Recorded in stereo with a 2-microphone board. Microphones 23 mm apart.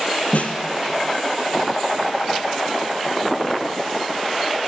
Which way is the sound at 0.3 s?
70° left (ahead or behind).